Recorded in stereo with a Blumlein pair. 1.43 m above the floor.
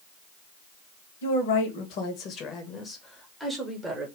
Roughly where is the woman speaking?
Ahead left.